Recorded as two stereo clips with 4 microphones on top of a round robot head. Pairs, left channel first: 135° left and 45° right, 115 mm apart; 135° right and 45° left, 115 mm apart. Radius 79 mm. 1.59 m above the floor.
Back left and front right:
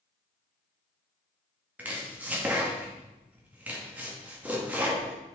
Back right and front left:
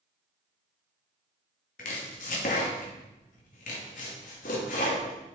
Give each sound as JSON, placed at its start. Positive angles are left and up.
{"t": 1.8, "sound": "chopping", "azimuth_deg": -120, "distance_m": 1.9}